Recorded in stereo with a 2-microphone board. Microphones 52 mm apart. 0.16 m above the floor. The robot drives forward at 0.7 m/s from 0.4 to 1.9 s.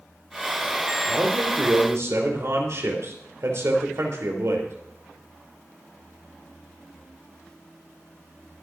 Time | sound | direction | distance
1.1 | a man speaking | 55° right (ahead or behind) | 4 m